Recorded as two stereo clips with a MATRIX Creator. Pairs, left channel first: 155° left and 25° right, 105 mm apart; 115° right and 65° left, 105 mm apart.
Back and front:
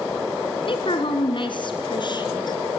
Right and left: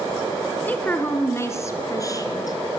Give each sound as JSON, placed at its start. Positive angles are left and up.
{"t": 0.7, "sound": "a woman speaking", "azimuth_deg": 175, "distance_m": 2.5}